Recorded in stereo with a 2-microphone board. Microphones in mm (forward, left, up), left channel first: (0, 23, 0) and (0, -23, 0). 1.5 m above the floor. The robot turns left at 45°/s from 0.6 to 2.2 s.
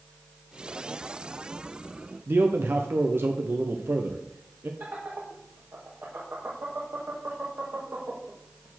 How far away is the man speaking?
About 0.8 m.